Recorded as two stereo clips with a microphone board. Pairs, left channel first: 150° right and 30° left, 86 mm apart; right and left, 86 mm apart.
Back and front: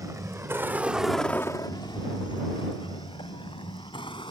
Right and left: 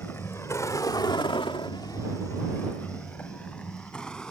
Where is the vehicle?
25° right; by 4.3 s 170° right.